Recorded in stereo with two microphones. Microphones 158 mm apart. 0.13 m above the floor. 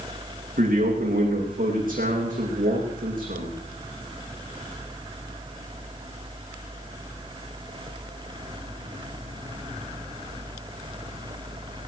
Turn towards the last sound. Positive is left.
turn(degrees=-60)  # may be behind; listen again after turning